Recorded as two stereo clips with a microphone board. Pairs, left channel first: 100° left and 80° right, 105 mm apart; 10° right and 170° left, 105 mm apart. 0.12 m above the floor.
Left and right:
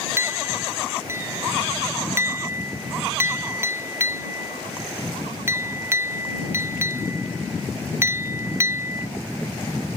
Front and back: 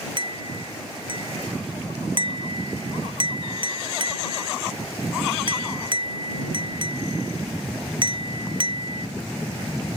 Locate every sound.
0.2 s a clink: 145° right